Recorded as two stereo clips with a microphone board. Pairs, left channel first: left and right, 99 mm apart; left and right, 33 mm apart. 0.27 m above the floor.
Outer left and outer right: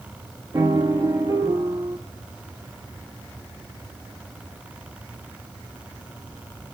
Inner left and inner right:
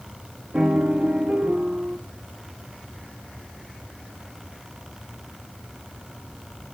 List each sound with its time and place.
0.5 s a piano: 35° right (ahead or behind), 1.1 m